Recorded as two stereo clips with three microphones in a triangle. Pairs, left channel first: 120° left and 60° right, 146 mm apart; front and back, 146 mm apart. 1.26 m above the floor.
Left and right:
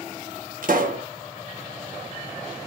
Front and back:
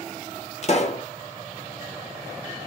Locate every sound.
0.6 s a pop: 40° right, 1.3 m